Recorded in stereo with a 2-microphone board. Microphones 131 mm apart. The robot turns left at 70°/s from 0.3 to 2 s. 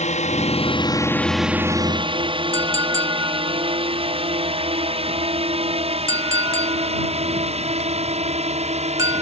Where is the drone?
65° left (ahead or behind); by 9.2 s 55° right (ahead or behind).